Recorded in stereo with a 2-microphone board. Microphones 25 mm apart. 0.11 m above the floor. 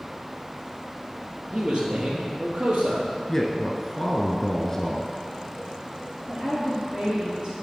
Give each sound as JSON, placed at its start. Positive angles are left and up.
{"t": 1.5, "sound": "a man speaking", "side_deg": -40, "distance_m": 2.0}
{"t": 3.3, "sound": "a man speaking", "side_deg": 20, "distance_m": 1.2}
{"t": 6.3, "sound": "a woman speaking", "side_deg": -45, "distance_m": 3.0}